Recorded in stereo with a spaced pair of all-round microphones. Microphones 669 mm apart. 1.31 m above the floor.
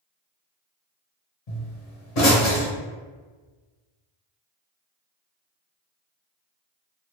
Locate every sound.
1.5 s a pop: 65° left (ahead or behind), 0.9 m